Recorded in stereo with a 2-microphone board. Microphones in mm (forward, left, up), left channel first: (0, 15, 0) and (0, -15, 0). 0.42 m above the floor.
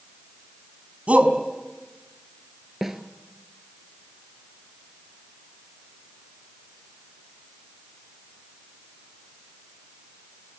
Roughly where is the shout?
Right.